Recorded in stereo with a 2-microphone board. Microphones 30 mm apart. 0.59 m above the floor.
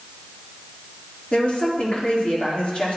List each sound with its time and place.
1.3 s a woman speaking: 35° left (ahead or behind), 1.5 m